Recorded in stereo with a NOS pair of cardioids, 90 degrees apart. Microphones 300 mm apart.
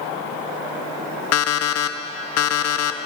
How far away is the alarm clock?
About 0.9 m.